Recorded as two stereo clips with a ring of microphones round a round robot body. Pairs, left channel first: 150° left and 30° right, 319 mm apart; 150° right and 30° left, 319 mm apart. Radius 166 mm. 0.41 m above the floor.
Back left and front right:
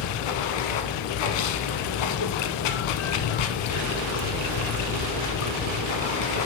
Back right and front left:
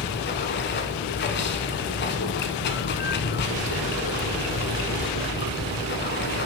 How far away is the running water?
About 0.9 m.